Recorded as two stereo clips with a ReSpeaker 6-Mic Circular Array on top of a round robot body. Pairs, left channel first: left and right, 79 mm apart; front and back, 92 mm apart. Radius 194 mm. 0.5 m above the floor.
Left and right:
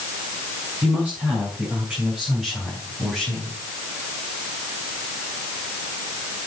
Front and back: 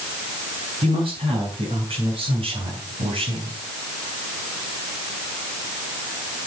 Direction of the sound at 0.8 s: 160° right.